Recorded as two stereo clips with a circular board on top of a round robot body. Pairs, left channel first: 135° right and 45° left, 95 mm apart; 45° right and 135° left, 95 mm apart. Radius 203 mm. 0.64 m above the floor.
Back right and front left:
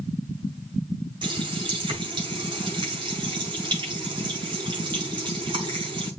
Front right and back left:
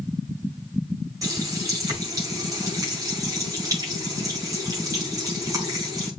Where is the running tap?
80° left, 5.5 m.